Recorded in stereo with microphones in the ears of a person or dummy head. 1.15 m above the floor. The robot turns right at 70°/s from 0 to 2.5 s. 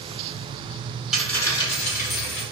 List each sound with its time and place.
1.1 s a dropped coin: 5° right, 1.6 m; by 2.4 s 85° left, 1.6 m